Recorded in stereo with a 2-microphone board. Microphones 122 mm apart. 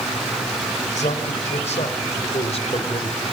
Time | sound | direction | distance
0.9 | a man speaking | 75° left (ahead or behind) | 4.5 m